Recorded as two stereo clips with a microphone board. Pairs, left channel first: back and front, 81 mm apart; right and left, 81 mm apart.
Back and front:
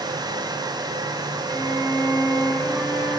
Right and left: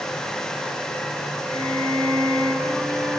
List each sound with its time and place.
1.5 s a violin: 120° left, 5 m